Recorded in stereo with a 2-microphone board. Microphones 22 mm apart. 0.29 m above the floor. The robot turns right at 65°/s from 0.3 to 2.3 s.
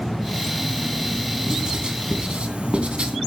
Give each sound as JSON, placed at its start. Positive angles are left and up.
{"t": 1.5, "sound": "writing", "side_deg": -30, "distance_m": 2.5}